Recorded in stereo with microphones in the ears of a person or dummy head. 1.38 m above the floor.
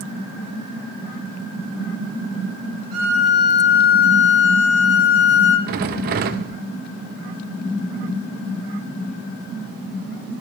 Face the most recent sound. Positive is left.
turn(degrees=-50)  # may be behind; listen again after turning